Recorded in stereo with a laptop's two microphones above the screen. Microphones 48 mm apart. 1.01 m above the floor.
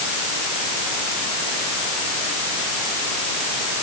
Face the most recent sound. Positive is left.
No sound to turn to.